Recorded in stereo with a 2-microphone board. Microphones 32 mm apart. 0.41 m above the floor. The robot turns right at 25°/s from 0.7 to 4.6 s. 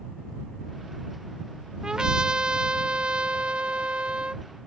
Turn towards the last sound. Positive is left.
turn(degrees=-70)